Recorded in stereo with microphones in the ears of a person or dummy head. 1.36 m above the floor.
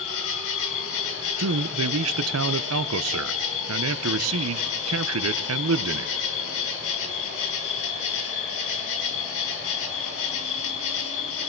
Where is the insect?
80° left, 2.5 m.